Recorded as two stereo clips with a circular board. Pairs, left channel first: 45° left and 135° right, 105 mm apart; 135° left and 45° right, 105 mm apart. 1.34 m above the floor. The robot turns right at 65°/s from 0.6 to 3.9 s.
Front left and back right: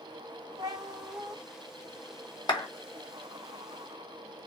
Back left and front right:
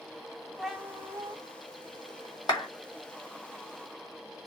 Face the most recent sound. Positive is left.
turn(degrees=180)